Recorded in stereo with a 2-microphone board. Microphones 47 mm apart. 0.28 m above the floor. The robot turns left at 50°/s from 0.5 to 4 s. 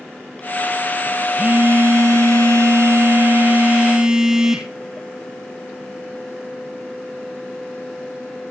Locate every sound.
1.4 s a phone buzzing: 35° right, 2 m; by 4.7 s 165° right, 2 m